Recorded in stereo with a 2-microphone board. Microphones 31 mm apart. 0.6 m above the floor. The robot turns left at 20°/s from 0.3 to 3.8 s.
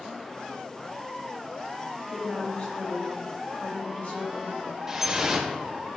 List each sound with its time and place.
2.1 s a woman speaking: 145° left, 2 m; by 4.7 s 110° left, 2 m
4.9 s dripping: 15° right (ahead or behind), 1.0 m